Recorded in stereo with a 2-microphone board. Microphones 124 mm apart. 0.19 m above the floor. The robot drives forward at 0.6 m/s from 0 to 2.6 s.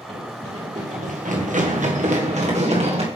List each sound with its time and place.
0.1 s running footsteps: 65° right (ahead or behind), 3.5 m; by 3.1 s 55° right (ahead or behind), 2.5 m